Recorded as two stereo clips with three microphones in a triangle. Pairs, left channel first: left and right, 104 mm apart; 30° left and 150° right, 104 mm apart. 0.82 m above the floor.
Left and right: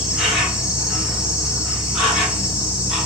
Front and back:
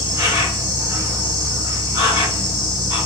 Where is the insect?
175° right, 1.2 m.